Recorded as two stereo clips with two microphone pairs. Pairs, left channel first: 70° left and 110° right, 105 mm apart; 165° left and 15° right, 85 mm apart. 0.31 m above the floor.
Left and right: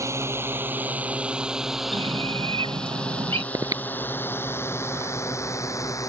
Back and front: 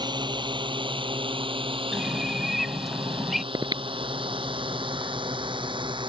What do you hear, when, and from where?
0.0 s a drone: 45° right; by 6.1 s 10° left
1.9 s a bird: 105° right
3.5 s breathing: 50° right